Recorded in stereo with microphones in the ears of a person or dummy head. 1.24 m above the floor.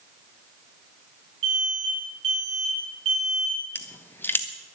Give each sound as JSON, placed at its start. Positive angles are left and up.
{"t": 1.4, "sound": "an alarm", "side_deg": -35, "distance_m": 10.0}
{"t": 3.8, "sound": "crushing", "side_deg": 15, "distance_m": 1.0}